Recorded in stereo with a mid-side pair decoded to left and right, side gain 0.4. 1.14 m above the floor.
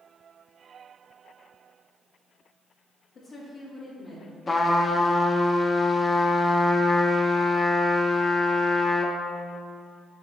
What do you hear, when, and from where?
3.1 s a woman speaking: 65° left, 1.6 m; by 4.4 s 40° left, 1.8 m
4.5 s a trumpet: 35° left, 0.8 m